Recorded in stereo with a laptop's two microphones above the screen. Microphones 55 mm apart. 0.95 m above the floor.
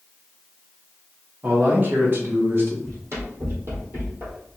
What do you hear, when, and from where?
1.4 s a man speaking: 35° right (ahead or behind), 1.1 m; by 2.7 s 45° right (ahead or behind), 1.1 m
2.8 s running footsteps: 60° right (ahead or behind), 1.7 m; by 4.4 s 40° right (ahead or behind), 1.4 m